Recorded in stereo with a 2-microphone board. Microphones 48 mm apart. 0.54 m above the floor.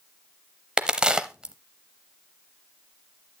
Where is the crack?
15° right (ahead or behind), 0.6 m.